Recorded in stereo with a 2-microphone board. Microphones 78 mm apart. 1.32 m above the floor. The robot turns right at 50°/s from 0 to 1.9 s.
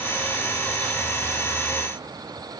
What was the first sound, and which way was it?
Only background noise.